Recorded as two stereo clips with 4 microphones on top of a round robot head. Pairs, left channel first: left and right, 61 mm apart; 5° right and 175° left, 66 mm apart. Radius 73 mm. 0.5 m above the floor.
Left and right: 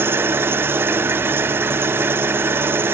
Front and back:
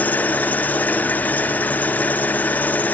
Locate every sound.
0.0 s an engine running: 60° right, 1.0 m